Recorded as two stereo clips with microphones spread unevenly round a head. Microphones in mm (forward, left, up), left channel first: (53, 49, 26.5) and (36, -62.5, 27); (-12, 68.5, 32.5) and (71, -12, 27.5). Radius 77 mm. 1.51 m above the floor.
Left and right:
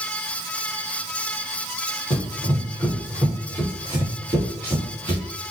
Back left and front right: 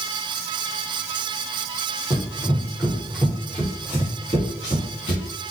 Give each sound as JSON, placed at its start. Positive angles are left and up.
{"t": 2.1, "sound": "running footsteps", "azimuth_deg": 30, "distance_m": 2.0}